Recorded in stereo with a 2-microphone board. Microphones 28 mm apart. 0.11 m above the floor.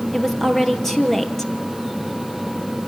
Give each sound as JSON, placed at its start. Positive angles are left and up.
{"t": 0.1, "sound": "a woman speaking", "side_deg": 15, "distance_m": 3.0}